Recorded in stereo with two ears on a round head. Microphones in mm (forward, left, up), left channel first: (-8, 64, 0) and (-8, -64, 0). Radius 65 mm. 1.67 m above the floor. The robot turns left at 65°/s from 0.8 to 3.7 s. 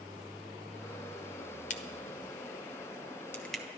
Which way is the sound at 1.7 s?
60° left (ahead or behind).